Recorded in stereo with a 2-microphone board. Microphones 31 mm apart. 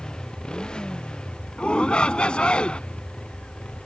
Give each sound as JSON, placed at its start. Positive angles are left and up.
{"t": 0.0, "sound": "a motorcycle", "side_deg": 25}
{"t": 1.6, "sound": "a shout", "side_deg": 35}